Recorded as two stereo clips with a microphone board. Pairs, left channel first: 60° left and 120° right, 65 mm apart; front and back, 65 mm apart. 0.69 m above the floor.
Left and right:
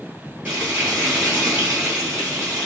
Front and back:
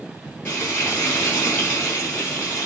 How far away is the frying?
About 5.5 m.